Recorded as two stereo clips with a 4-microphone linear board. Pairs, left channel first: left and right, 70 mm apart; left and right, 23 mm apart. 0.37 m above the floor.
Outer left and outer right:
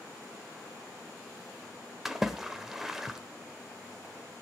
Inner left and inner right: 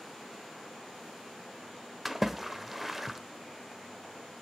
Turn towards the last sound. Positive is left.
turn(degrees=-5)  # may be behind; listen again after turning